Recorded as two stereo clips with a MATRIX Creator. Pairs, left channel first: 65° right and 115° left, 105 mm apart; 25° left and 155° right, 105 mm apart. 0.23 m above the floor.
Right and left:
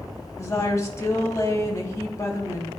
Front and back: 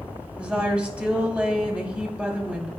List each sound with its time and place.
0.4 s a woman speaking: 90° right, 1.4 m